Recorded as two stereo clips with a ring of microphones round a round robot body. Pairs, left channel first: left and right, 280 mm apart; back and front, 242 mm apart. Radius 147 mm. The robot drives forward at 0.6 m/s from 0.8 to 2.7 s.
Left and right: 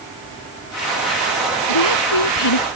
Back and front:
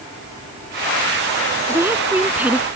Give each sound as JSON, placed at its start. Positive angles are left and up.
{"t": 1.7, "sound": "a woman speaking", "azimuth_deg": 80}